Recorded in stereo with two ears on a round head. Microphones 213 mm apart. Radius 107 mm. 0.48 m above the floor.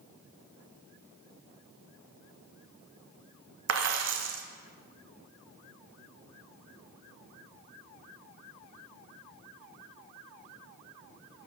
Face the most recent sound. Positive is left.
turn(degrees=-55)  # may be behind; listen again after turning